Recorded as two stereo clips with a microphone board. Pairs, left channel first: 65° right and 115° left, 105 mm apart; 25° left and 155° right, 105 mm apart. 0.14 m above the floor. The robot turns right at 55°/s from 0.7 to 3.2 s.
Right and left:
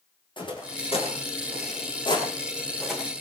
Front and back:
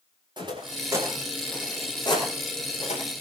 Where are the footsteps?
110° right, 9 m; by 3.0 s 30° left, 9 m.